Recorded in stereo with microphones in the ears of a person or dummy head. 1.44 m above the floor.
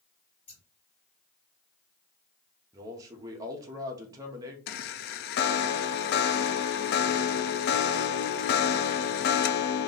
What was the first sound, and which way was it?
Scissors, 40° left (ahead or behind).